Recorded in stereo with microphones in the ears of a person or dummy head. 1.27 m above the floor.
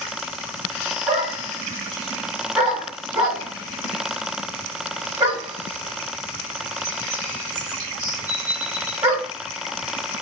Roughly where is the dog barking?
Right.